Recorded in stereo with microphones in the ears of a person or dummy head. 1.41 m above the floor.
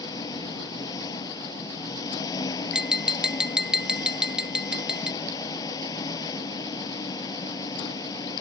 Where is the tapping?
Centre (ahead or behind).